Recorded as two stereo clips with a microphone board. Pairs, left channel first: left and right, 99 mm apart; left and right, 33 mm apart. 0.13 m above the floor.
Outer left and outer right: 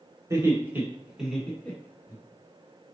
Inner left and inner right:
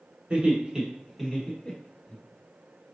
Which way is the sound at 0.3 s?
35° right (ahead or behind).